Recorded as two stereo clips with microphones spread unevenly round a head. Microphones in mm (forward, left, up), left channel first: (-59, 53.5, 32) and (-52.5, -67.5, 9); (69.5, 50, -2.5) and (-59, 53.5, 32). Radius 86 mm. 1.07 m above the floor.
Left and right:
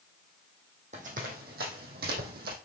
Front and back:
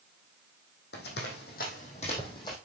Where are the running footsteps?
30° right, 3 m; by 2.5 s 80° right, 3 m.